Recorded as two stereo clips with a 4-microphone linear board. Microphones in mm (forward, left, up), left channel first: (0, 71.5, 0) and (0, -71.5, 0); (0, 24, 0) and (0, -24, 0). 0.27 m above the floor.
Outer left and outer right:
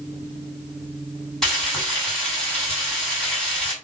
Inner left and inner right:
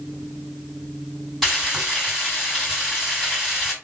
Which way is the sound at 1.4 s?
Centre (ahead or behind).